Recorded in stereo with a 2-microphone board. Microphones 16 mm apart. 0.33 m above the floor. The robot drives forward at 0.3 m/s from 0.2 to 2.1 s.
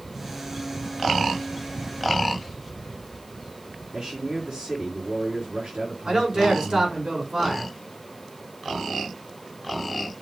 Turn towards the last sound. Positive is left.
turn(degrees=-60)  # may be behind; listen again after turning